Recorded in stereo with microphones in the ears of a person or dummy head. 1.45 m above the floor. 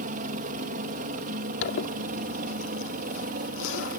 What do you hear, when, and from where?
0.0 s a helicopter: 40° right (ahead or behind); by 4.0 s 45° right (ahead or behind)
1.6 s a zipper: 75° left (ahead or behind)